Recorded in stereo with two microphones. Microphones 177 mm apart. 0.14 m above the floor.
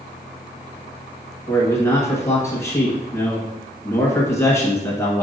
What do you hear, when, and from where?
1.5 s a man speaking: 15° left (ahead or behind), 1.4 m